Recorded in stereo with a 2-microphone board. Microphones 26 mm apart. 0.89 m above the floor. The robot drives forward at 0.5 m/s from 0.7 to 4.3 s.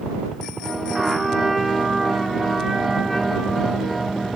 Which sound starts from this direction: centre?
A trumpet, at 0.9 s.